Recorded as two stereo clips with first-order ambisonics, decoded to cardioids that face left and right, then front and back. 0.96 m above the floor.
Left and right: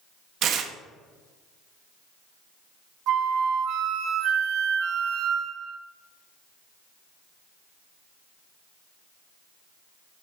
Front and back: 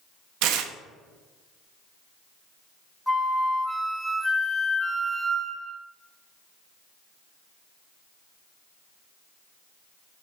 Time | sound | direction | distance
0.4 | tearing paper | 145° right | 0.5 m
3.1 | a flute | 85° right | 0.5 m